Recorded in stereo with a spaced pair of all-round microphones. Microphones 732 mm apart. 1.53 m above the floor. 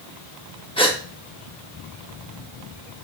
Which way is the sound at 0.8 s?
10° left (ahead or behind).